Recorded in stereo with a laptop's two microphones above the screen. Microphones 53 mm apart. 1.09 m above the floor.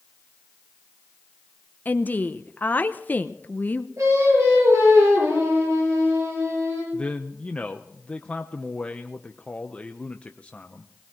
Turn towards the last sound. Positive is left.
turn(degrees=25)  # may be behind; listen again after turning